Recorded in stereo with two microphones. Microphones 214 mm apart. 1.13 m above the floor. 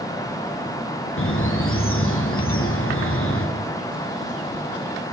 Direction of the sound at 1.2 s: 80° left.